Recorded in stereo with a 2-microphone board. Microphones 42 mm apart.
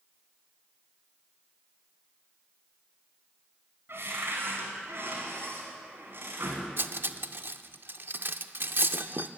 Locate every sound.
3.9 s a cupboard door: 65° right (ahead or behind), 2.5 m
6.8 s cutlery clinking: 60° right (ahead or behind), 0.5 m